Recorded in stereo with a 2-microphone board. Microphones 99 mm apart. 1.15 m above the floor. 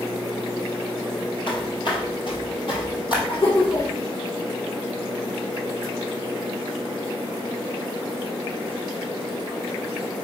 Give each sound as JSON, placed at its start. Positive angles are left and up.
{"t": 1.5, "sound": "footsteps", "side_deg": 55, "distance_m": 1.9}
{"t": 3.3, "sound": "laughter", "side_deg": 80, "distance_m": 3.0}